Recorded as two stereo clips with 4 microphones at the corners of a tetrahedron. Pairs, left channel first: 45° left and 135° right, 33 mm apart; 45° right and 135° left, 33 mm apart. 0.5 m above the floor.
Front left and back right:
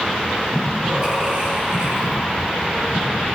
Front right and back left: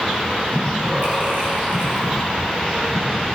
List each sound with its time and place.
0.5 s breathing: 165° left, 6 m